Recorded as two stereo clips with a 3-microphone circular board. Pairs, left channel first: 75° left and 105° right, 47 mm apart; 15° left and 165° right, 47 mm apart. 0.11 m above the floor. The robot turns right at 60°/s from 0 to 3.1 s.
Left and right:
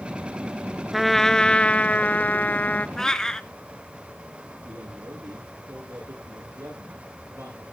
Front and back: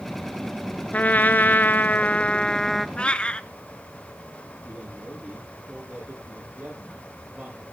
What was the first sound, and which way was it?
A trumpet, 20° right.